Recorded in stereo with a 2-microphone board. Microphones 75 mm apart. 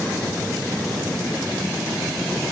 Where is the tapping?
I don't hear tapping.